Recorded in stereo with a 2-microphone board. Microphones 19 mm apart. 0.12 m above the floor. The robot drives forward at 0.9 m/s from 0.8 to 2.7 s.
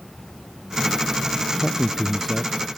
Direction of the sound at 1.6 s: 10° left (ahead or behind).